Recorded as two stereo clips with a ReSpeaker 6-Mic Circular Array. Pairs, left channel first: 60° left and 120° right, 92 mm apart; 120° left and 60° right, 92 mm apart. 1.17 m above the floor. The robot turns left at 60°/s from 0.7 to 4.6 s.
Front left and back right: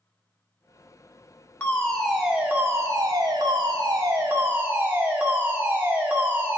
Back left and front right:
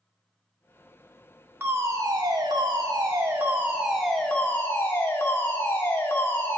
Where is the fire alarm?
5° right, 1.7 m; by 6.6 s 175° left, 1.7 m.